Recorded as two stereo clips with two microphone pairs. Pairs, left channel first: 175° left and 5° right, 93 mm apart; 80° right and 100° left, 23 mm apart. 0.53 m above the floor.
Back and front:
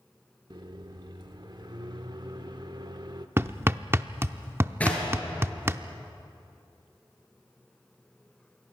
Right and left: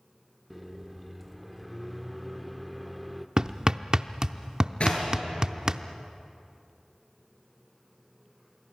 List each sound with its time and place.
0.5 s a microwave: 10° left, 0.9 m
3.4 s hammering: 50° left, 0.6 m
4.8 s knocking: 110° right, 7 m